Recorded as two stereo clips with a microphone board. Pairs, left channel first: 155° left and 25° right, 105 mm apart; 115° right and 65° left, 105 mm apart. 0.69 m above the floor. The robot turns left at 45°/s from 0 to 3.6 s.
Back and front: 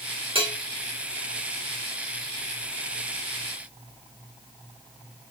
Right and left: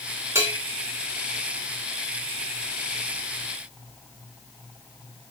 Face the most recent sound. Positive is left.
turn(degrees=-140)